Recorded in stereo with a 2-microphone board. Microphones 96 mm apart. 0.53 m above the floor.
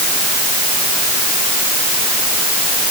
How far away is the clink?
I don't hear a clink.